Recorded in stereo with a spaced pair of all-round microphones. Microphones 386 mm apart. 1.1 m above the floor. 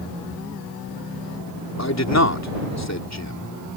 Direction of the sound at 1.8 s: 40° left (ahead or behind).